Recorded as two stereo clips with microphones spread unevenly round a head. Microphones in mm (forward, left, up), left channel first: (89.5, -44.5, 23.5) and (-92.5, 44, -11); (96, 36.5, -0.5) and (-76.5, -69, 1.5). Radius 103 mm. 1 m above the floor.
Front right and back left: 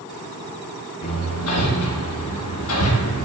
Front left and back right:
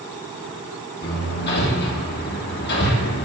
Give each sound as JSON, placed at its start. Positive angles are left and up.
{"t": 1.0, "sound": "hammering", "azimuth_deg": -10, "distance_m": 1.8}